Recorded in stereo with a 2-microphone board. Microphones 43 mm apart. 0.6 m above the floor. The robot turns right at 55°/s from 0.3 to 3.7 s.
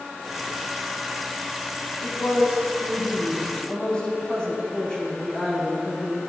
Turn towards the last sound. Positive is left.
turn(degrees=160)